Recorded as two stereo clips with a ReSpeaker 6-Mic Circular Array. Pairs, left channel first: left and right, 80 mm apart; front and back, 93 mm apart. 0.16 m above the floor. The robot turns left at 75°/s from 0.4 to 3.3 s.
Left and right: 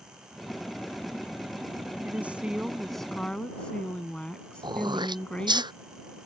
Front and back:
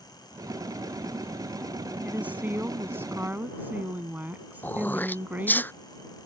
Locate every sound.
2.0 s a woman speaking: 120° right; by 5.6 s 145° left
4.6 s throat clearing: 70° right